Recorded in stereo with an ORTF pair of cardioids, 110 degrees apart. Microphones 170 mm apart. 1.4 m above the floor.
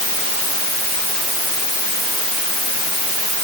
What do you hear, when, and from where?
Only background noise.